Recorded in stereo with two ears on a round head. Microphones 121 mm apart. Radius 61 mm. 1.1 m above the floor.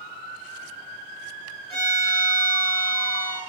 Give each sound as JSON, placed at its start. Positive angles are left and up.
{"t": 1.7, "sound": "a violin", "side_deg": 25, "distance_m": 1.4}